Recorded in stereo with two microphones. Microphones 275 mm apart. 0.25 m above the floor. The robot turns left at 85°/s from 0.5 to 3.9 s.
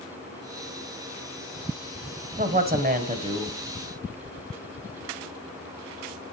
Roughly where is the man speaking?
Ahead right.